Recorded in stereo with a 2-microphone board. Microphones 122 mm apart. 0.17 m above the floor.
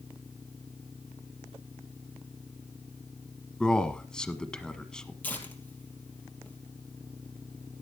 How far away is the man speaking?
About 1.3 m.